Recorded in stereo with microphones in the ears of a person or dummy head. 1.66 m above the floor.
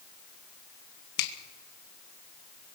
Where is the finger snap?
60° left (ahead or behind), 2.5 m.